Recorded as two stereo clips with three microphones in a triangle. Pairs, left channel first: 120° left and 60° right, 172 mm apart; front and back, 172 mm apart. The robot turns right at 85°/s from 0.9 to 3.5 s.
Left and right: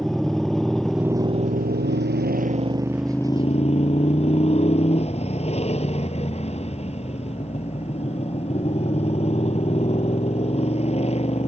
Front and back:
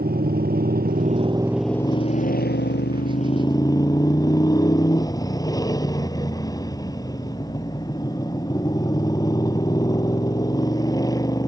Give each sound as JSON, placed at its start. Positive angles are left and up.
{"t": 0.0, "sound": "a motorcycle", "azimuth_deg": -150}